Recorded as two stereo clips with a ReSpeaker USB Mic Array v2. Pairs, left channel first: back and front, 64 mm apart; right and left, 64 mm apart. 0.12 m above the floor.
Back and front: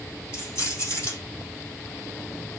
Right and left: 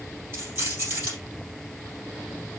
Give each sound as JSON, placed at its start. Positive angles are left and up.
{"t": 0.3, "sound": "keys jangling", "azimuth_deg": 135, "distance_m": 3.0}